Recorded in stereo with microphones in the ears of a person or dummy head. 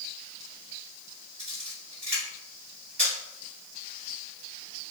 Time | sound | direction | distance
1.4 | a camera shutter | 45° right (ahead or behind) | 1.5 m